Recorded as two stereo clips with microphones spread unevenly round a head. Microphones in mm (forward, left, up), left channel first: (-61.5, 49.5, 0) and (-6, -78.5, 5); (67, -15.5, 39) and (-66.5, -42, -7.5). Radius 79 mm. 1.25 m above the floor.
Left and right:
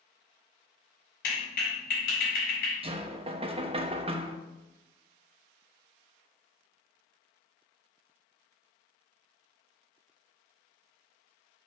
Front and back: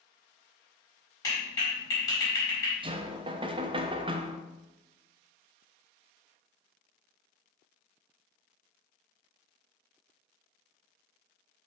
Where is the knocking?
110° right, 0.9 m.